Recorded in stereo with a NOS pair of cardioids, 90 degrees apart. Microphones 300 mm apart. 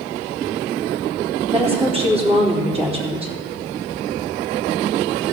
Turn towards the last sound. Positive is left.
turn(degrees=-20)